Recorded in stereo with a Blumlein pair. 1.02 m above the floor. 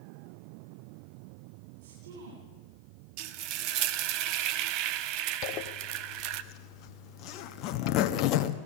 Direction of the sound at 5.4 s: 40° left.